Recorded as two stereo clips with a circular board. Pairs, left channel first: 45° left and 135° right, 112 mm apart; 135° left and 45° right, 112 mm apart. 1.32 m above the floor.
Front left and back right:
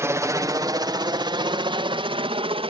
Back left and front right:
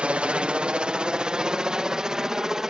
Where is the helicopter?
110° right; by 2.7 s 130° right.